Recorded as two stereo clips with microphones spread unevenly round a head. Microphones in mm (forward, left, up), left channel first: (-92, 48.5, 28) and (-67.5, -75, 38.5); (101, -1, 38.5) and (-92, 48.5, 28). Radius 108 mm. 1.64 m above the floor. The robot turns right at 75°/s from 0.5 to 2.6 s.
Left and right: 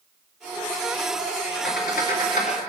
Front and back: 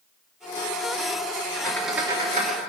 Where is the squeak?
60° left, 2.5 m; by 2.6 s 130° left, 2.5 m.